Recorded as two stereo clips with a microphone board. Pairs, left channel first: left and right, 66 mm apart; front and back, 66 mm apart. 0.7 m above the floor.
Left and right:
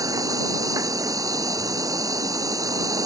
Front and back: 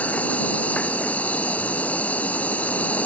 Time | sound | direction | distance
0.0 | an insect | 65° right | ?